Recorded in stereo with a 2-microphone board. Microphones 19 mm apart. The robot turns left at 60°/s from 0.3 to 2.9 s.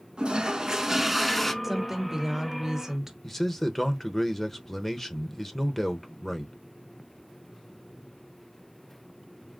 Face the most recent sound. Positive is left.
turn(degrees=15)  # may be behind; listen again after turning